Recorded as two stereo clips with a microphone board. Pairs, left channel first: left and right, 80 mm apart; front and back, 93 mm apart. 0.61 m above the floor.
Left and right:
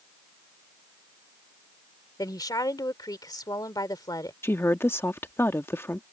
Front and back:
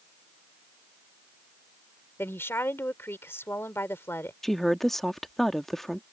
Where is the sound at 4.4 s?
80° left.